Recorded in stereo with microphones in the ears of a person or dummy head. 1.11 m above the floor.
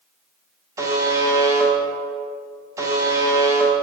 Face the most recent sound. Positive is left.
turn(degrees=-15)  # may be behind; listen again after turning